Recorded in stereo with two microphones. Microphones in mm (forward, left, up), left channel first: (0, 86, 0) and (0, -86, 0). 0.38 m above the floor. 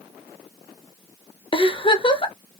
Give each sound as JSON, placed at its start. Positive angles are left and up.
{"t": 1.5, "sound": "a giggle", "side_deg": 30, "distance_m": 0.6}